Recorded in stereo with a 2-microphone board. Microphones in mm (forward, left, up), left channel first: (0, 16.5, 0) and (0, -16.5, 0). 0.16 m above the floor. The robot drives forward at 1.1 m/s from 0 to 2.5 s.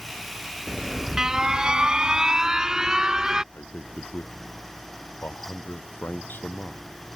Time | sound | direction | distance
0.7 | an alarm | 15° right (ahead or behind) | ?
3.5 | a man speaking | 70° left (ahead or behind) | ?